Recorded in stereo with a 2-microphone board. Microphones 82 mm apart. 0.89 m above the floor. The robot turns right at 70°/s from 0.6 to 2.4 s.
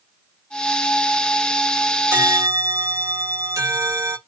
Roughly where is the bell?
Right.